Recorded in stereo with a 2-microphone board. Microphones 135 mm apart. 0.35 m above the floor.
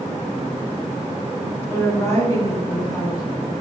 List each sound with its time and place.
1.7 s a woman speaking: 20° left (ahead or behind), 1.2 m; by 3.2 s 30° left (ahead or behind), 1.7 m